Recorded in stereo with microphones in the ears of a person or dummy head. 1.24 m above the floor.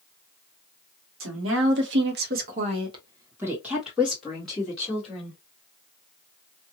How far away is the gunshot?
No gunshot in this recording.